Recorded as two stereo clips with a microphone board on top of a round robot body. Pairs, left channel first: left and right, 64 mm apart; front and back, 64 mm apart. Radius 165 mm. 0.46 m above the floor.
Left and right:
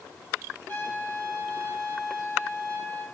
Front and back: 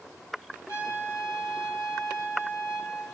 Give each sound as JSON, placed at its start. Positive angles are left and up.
{"t": 0.7, "sound": "a trumpet", "azimuth_deg": 30, "distance_m": 5.5}